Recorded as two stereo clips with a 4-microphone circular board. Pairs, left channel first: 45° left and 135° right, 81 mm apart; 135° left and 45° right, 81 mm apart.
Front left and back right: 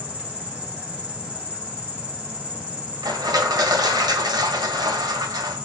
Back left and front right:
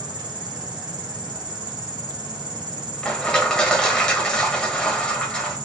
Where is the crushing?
145° right, 1.6 m.